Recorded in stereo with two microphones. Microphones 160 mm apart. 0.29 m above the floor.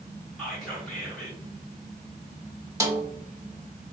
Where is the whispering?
5° left (ahead or behind), 1.3 m.